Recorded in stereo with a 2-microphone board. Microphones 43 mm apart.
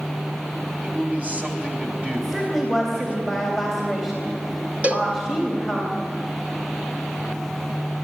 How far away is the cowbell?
About 1.6 m.